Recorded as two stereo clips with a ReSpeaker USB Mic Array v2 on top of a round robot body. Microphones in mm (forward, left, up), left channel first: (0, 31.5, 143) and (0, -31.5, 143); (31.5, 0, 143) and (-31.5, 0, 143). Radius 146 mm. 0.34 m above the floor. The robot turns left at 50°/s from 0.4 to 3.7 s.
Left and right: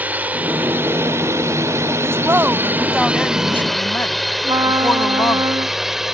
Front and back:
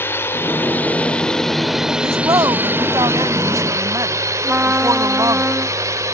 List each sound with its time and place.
0.0 s a drone: 35° right; by 6.1 s 170° right
2.0 s a woman speaking: 135° right; by 5.4 s 145° left
4.4 s a trumpet: 115° right